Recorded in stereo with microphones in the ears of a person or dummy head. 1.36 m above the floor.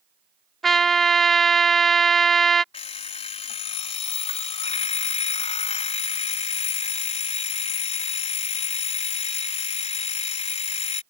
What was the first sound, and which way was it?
A trumpet, centre (ahead or behind).